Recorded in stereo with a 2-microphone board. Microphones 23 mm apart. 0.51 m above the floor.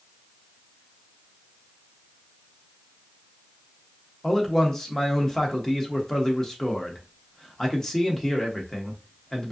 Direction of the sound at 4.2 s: 20° left (ahead or behind).